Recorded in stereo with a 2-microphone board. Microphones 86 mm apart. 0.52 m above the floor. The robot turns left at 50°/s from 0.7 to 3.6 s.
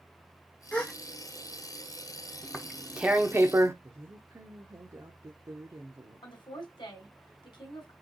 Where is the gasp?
15° left (ahead or behind), 1.0 m; by 0.9 s 5° left (ahead or behind), 1.0 m.